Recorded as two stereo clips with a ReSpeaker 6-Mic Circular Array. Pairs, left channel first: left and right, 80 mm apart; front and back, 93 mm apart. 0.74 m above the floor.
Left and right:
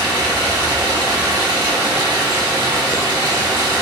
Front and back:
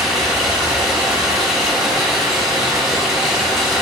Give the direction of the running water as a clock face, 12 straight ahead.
3 o'clock.